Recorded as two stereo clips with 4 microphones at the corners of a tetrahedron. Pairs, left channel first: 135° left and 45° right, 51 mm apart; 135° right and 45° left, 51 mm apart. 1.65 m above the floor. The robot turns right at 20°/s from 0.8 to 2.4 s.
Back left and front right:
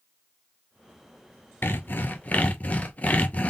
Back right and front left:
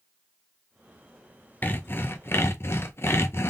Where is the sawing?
175° left, 0.6 m; by 3.5 s 165° right, 0.6 m.